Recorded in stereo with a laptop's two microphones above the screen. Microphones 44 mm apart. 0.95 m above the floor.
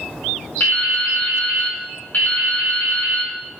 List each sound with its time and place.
0.6 s dripping: 45° left (ahead or behind), 3 m